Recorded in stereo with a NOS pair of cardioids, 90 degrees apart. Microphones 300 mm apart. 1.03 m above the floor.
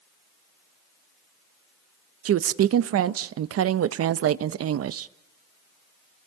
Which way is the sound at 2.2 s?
55° right.